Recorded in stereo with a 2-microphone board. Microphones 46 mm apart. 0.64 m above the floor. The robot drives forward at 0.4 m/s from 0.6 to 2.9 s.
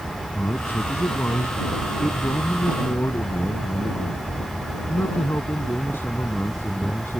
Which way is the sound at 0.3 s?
55° left (ahead or behind).